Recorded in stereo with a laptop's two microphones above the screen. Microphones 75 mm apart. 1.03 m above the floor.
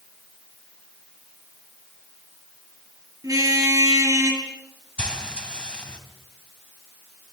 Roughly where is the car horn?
Right.